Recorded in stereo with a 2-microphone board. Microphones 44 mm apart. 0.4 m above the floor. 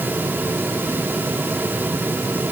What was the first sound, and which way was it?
Only background noise.